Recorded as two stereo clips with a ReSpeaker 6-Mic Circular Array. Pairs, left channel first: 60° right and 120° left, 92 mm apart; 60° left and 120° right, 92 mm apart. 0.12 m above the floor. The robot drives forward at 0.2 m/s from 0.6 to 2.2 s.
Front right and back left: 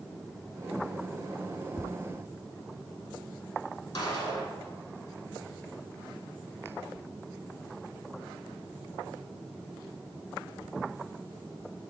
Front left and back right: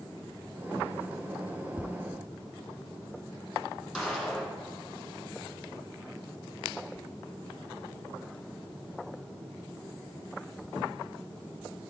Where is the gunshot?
30° right, 2.5 m.